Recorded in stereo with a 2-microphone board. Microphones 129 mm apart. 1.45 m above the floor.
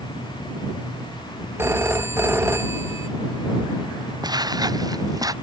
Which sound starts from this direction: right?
Footsteps, at 4.2 s.